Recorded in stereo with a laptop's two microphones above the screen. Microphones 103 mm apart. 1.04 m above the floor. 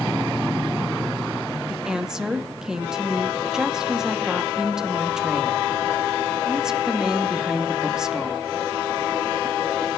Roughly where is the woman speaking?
Centre.